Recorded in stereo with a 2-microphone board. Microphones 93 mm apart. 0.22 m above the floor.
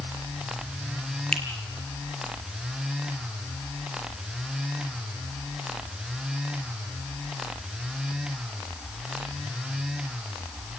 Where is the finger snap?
10° left (ahead or behind), 4 m.